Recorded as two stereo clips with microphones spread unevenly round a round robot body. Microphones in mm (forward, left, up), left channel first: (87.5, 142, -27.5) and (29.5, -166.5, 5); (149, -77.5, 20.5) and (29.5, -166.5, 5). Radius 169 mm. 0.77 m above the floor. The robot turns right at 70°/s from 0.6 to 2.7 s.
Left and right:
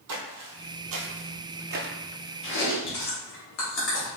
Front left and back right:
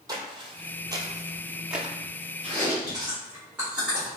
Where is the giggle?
No giggle in this recording.